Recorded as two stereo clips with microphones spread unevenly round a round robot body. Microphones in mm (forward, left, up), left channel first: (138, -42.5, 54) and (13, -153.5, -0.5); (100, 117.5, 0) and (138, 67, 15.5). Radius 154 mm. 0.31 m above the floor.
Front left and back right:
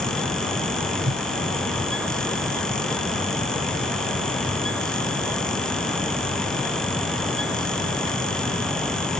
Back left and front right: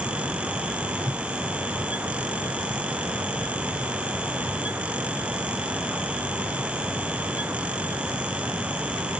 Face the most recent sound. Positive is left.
turn(degrees=-115)